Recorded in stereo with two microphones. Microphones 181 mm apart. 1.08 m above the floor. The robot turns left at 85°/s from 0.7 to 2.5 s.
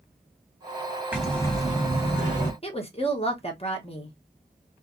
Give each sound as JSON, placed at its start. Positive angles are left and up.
{"t": 1.1, "sound": "breathing", "azimuth_deg": -170, "distance_m": 1.4}
{"t": 2.6, "sound": "a woman speaking", "side_deg": 35, "distance_m": 0.9}